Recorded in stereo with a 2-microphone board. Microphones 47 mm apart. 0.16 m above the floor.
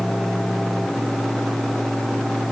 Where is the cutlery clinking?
No cutlery clinking in this recording.